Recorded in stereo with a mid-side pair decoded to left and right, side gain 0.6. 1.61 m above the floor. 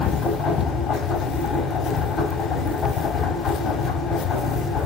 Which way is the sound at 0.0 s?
40° left.